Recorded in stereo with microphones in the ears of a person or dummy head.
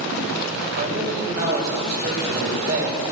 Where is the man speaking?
55° right (ahead or behind), 6 m.